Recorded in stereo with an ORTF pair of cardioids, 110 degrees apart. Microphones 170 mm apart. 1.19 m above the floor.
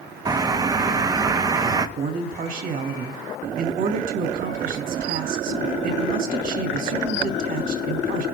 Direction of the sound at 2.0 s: 55° right.